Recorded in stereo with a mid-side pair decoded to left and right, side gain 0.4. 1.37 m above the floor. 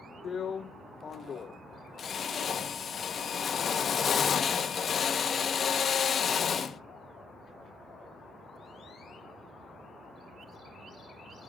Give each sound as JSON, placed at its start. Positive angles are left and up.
{"t": 0.2, "sound": "a drill", "azimuth_deg": 50, "distance_m": 1.5}